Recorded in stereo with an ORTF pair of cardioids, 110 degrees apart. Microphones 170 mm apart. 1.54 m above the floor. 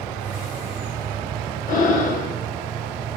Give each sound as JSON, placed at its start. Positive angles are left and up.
{"t": 1.7, "sound": "breathing", "azimuth_deg": 55, "distance_m": 1.8}